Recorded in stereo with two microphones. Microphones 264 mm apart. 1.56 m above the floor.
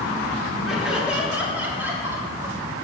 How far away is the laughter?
About 3.5 m.